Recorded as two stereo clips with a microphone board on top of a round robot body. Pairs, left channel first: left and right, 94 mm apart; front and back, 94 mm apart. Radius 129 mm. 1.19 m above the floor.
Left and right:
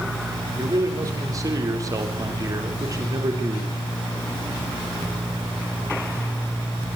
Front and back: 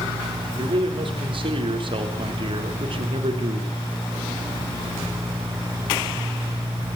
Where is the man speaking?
145° right, 3.5 m.